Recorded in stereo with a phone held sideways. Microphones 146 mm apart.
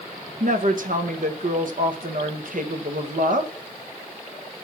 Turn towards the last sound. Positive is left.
turn(degrees=-65)  # may be behind; listen again after turning